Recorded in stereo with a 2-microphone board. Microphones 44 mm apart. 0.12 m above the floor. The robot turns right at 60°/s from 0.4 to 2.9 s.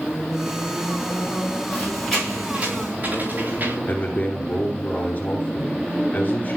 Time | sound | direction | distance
1.7 | a squeak | 25° left (ahead or behind) | 7 m
3.9 | a man speaking | 40° left (ahead or behind) | 2 m